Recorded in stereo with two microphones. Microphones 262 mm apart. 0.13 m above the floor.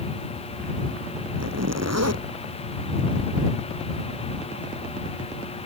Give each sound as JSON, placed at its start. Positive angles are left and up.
{"t": 1.4, "sound": "a zipper", "side_deg": -75}